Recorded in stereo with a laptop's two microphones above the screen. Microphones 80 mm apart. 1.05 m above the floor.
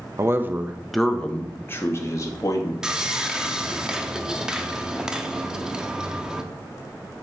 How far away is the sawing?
About 0.7 m.